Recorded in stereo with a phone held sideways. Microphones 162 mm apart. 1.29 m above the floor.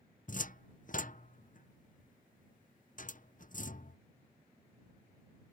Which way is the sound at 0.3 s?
55° left (ahead or behind).